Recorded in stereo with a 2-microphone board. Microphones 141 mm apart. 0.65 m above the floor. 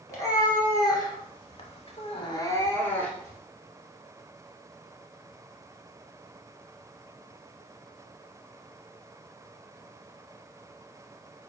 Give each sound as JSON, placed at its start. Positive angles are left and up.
{"t": 0.1, "sound": "a cat meowing", "side_deg": 20, "distance_m": 1.8}